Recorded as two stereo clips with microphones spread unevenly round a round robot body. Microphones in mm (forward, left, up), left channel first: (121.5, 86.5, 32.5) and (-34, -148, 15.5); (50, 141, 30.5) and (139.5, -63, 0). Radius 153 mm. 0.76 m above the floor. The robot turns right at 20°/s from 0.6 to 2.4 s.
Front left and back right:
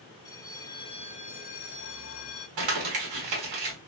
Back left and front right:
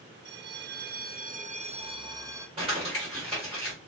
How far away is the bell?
About 0.6 m.